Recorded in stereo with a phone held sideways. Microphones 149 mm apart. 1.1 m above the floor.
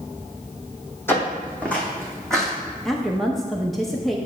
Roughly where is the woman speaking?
Centre.